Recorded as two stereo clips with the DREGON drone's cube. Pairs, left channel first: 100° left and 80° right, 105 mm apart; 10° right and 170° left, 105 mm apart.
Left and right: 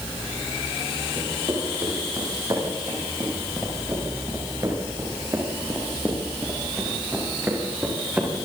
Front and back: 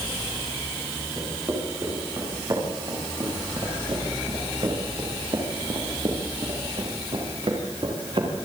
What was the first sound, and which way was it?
Footsteps, 135° right.